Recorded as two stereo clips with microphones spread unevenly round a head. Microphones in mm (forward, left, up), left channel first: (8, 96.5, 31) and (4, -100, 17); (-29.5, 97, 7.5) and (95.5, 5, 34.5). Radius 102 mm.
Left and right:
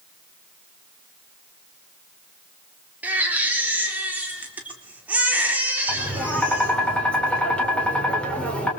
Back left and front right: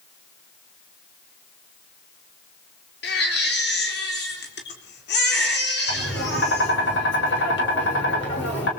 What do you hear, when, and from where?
3.0 s a baby crying: 175° right, 4 m
5.9 s tapping: 175° left, 5.5 m